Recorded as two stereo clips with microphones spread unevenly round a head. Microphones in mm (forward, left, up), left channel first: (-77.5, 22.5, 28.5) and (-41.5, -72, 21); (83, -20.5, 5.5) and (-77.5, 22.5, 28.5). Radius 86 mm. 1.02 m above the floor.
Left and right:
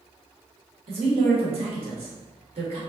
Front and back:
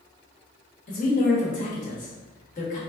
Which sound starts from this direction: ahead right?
A woman speaking, at 0.9 s.